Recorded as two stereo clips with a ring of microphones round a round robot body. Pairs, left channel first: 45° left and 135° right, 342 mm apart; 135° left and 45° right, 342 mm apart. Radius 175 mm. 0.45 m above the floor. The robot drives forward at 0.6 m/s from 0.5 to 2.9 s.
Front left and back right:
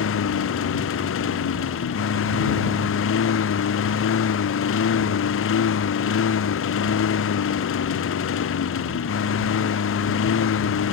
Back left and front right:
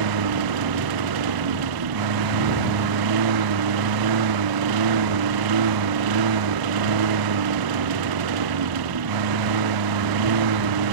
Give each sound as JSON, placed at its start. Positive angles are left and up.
{"t": 0.0, "sound": "a lawn mower", "azimuth_deg": -10}